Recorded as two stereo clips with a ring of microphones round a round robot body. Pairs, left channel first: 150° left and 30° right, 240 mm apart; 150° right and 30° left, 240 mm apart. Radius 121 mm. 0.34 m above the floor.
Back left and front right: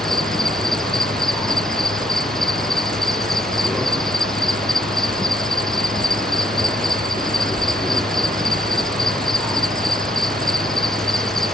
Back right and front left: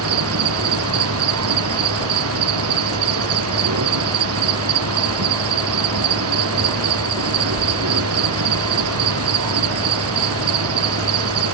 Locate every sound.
0.0 s an insect: 60° left